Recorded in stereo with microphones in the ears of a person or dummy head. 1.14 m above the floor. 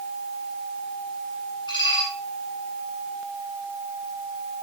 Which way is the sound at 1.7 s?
30° left (ahead or behind).